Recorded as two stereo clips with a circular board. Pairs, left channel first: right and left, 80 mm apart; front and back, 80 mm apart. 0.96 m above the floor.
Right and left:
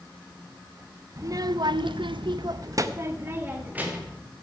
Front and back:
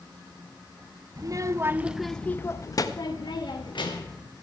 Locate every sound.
1.2 s a child speaking: 140° left, 0.7 m; by 4.2 s 20° left, 1.4 m